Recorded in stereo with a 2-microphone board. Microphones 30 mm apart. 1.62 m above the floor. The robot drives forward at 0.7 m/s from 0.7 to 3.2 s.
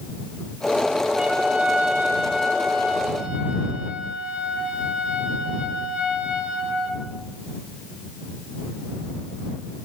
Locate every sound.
1.1 s a trumpet: 60° right (ahead or behind), 4 m; by 7.0 s 70° right (ahead or behind), 3.5 m